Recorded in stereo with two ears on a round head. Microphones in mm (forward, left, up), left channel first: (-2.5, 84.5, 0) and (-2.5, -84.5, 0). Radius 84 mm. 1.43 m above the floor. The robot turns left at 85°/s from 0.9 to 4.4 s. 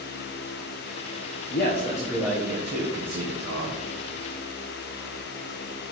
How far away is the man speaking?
About 1.0 m.